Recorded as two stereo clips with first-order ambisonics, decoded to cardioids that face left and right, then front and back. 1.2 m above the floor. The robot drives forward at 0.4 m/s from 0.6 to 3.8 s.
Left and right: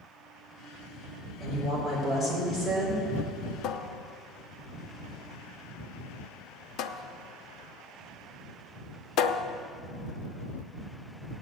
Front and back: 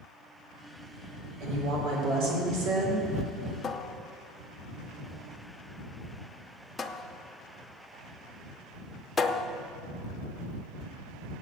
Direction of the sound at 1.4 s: 170° left.